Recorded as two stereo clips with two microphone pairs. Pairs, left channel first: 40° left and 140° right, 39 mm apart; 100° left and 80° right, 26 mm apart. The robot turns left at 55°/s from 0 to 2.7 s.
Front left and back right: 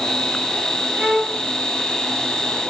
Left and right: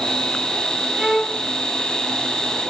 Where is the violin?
130° right, 2.5 m; by 1.4 s 155° right, 2.5 m.